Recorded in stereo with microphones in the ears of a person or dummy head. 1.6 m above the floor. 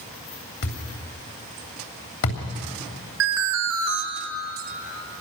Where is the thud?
65° left (ahead or behind), 3 m.